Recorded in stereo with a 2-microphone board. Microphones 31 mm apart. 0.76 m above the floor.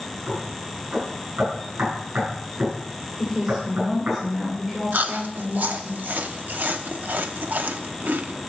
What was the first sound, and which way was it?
Knocking, 70° right (ahead or behind).